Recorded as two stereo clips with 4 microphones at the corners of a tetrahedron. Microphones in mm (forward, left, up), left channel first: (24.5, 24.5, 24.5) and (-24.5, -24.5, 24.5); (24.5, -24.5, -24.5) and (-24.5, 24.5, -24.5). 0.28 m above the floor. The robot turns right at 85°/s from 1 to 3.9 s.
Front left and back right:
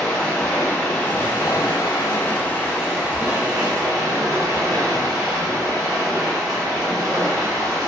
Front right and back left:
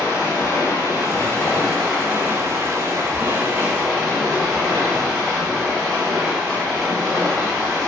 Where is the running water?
25° right, 1.2 m; by 7.9 s 135° right, 1.2 m.